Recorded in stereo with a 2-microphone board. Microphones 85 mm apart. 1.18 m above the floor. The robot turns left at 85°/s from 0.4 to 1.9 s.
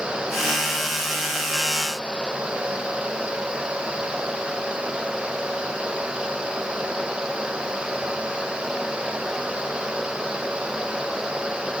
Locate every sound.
Only background noise.